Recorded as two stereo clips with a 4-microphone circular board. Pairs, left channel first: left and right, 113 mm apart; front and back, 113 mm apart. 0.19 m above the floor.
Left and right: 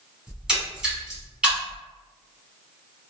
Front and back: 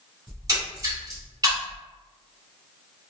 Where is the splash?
165° right, 1.0 m.